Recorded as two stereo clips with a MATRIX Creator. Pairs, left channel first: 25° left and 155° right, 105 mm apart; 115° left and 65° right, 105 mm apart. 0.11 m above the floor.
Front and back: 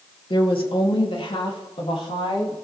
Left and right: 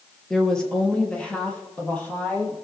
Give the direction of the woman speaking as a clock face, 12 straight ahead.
11 o'clock.